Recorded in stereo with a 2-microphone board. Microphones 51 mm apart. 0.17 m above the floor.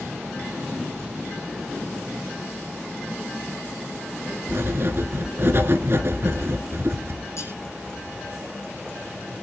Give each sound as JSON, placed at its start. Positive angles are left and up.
{"t": 4.5, "sound": "writing", "side_deg": -50, "distance_m": 2.0}
{"t": 7.4, "sound": "cutlery clinking", "side_deg": 60, "distance_m": 4.5}